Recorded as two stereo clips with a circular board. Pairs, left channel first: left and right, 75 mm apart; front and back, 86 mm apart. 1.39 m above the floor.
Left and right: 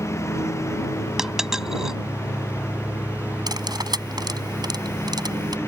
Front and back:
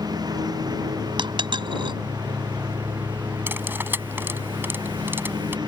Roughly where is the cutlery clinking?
Behind right.